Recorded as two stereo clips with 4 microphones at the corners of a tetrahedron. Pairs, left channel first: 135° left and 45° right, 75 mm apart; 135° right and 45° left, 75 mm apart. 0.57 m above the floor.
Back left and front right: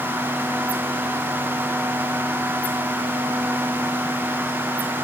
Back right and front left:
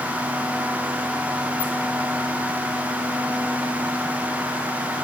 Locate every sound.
Only background noise.